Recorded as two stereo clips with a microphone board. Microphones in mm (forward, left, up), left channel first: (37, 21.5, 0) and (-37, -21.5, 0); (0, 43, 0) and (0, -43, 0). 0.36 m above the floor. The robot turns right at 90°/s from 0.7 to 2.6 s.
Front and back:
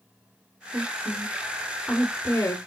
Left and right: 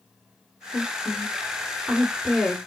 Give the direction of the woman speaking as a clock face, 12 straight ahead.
5 o'clock.